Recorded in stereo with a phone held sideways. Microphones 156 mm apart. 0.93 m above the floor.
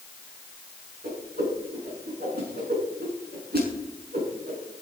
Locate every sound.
1.0 s a whoosh: 80° right, 6 m